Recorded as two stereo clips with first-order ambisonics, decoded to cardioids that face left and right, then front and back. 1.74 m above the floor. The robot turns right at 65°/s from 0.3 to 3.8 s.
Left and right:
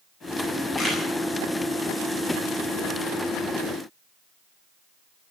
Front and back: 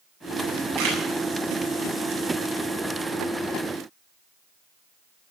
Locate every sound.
0.8 s a camera shutter: 160° left, 8 m; by 1.0 s 175° left, 8 m